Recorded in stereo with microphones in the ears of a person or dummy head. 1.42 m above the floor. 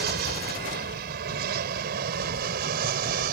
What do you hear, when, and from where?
0.0 s an aircraft: 60° right (ahead or behind); by 3.3 s 50° right (ahead or behind)